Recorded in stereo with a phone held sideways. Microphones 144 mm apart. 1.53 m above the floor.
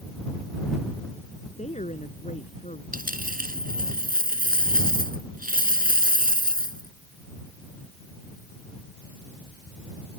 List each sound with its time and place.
1.6 s a woman speaking: 55° left (ahead or behind)
2.9 s a dropped coin: 80° right